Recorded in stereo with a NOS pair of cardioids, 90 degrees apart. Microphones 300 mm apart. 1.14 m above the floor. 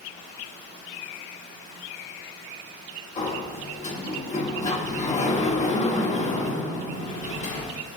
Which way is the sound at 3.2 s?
25° left.